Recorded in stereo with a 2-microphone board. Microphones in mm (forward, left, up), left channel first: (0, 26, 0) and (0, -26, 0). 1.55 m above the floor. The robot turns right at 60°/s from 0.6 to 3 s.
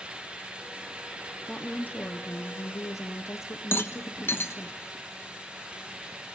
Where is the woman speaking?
15° left, 0.9 m; by 4.7 s 105° left, 0.9 m.